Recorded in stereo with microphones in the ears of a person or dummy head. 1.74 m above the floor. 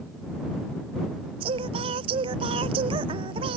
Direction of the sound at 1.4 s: 30° right (ahead or behind).